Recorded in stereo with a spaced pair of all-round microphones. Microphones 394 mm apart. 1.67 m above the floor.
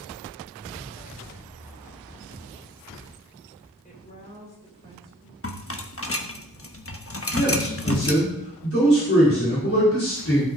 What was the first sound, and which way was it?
A woman speaking, 20° left (ahead or behind).